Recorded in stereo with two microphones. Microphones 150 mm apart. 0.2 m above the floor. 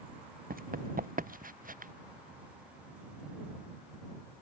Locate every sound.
0.5 s running footsteps: 65° right (ahead or behind); by 1.9 s 60° right (ahead or behind)